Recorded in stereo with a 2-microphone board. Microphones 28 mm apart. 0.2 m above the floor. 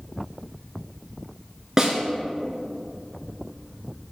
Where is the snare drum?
20° right (ahead or behind), 1.8 m.